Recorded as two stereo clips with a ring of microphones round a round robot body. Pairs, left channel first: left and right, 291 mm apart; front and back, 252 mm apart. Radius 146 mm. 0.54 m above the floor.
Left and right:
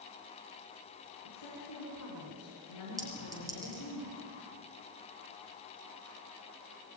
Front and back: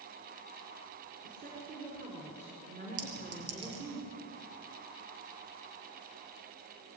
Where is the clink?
170° right, 6 m.